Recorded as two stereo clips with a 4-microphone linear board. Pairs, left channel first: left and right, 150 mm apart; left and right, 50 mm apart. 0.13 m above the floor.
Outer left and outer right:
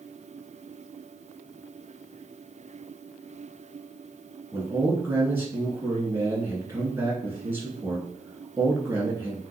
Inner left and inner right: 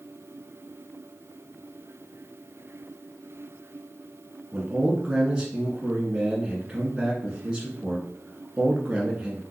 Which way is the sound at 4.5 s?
15° right (ahead or behind).